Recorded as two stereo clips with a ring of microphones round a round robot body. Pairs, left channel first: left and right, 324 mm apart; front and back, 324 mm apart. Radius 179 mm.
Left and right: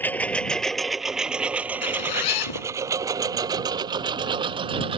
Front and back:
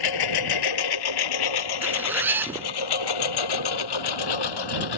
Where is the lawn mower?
5° left; by 5.0 s 15° right.